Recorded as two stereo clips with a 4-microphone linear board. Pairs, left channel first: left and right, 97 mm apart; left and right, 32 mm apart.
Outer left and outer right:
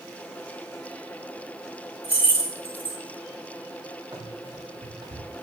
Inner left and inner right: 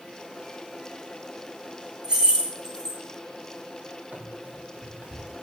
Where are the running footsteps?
50° right (ahead or behind), 4.5 m.